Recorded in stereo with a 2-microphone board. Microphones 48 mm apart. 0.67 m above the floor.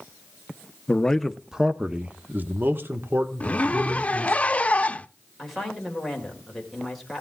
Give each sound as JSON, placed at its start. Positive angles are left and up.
{"t": 0.9, "sound": "a man speaking", "side_deg": 20, "distance_m": 0.7}
{"t": 3.4, "sound": "a zipper", "side_deg": 25, "distance_m": 0.5}
{"t": 5.4, "sound": "a woman speaking", "side_deg": 5, "distance_m": 3.0}